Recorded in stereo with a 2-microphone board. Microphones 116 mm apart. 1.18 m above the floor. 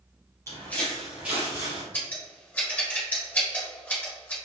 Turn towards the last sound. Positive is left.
turn(degrees=15)  # may be behind; listen again after turning